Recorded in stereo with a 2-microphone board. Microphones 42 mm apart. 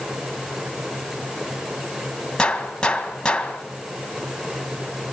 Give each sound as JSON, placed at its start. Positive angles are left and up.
{"t": 2.4, "sound": "a gunshot", "side_deg": 20, "distance_m": 1.8}